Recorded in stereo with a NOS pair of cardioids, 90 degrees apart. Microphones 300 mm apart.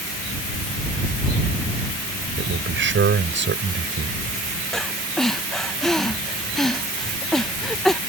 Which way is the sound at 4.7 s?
Straight ahead.